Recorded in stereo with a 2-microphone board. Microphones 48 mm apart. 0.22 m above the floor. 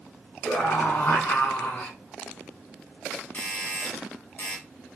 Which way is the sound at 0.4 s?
45° left (ahead or behind).